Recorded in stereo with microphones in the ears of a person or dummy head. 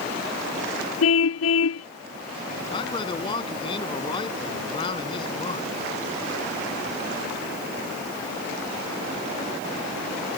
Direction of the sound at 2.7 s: 25° left (ahead or behind).